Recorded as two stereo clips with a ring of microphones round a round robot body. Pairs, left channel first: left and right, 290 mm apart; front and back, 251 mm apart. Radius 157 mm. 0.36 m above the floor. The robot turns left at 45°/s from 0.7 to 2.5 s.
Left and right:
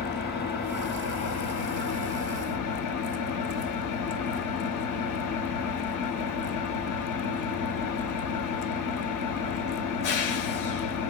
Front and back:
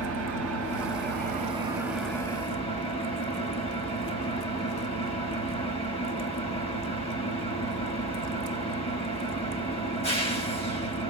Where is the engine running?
150° left, 5.5 m; by 11.1 s 70° left, 5.5 m.